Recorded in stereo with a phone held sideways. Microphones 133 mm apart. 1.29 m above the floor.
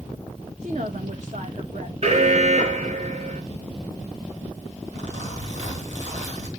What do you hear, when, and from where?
0.6 s a woman speaking: 60° right (ahead or behind), 1.2 m
2.0 s an alarm: 55° right (ahead or behind), 1.8 m
4.9 s a zipper: 60° right (ahead or behind), 3.5 m